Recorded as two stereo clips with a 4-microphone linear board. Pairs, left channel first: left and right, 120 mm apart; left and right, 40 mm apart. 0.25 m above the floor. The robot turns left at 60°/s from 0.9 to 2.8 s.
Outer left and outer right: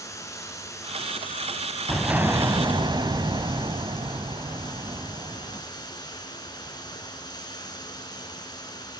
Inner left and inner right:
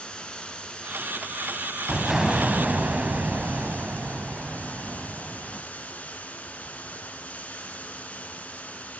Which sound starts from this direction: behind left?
Running water, at 0.0 s.